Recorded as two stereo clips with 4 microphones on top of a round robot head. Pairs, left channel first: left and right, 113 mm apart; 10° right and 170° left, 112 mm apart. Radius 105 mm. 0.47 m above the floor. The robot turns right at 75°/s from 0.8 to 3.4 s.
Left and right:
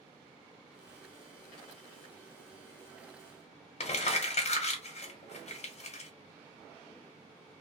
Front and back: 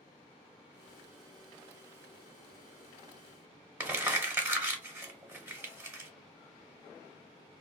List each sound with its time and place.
3.8 s crumpling: 100° left, 1.0 m